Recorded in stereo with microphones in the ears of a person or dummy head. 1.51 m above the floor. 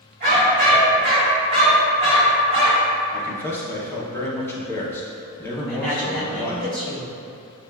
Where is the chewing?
I don't hear chewing.